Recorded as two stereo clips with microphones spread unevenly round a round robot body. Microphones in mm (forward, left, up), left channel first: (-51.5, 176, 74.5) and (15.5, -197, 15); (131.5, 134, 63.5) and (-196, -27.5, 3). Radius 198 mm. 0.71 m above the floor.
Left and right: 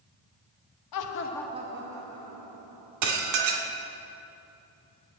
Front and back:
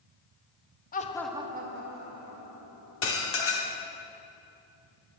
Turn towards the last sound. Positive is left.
turn(degrees=-35)